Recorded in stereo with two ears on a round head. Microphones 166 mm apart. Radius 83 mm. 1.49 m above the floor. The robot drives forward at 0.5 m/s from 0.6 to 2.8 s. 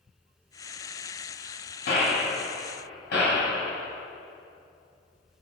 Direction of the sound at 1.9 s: 65° left (ahead or behind).